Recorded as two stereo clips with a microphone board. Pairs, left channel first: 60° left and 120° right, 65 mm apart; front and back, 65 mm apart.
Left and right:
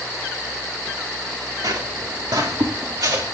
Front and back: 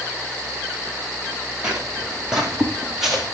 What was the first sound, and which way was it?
Footsteps, 105° right.